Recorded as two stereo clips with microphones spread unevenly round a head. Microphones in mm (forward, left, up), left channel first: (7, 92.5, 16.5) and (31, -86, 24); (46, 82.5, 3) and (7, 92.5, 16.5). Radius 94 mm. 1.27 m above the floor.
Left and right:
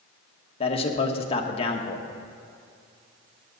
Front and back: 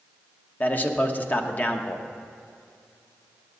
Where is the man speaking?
35° left, 1.2 m.